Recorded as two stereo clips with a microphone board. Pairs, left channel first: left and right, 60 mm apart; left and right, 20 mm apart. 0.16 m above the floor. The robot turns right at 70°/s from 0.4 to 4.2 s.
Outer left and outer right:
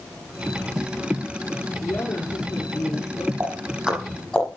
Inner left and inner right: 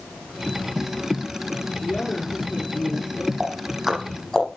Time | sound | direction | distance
1.8 | a woman speaking | 35° left | 5.5 m
3.4 | ticking | 40° right (ahead or behind) | 5 m